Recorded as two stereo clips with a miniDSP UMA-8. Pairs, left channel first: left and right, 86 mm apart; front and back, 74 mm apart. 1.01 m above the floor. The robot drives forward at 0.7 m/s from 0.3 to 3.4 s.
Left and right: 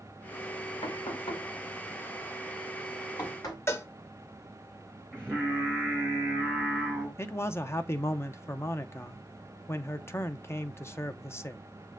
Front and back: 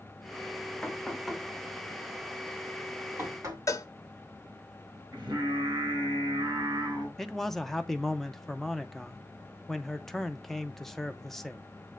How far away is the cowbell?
About 0.7 m.